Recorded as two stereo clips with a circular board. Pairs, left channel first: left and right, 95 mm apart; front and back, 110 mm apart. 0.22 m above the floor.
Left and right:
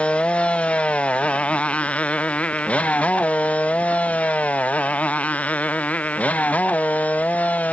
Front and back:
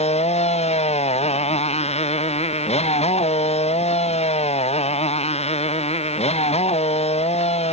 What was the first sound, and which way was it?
A motorcycle, 15° left.